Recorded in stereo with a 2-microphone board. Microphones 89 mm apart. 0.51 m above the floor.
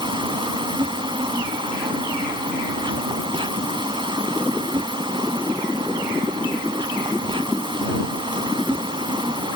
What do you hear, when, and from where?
0.0 s an insect: 70° right (ahead or behind)